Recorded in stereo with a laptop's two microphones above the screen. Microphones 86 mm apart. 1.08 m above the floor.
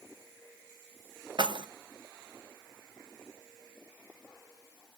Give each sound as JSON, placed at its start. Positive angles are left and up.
{"t": 1.4, "sound": "keys jangling", "side_deg": -65, "distance_m": 0.6}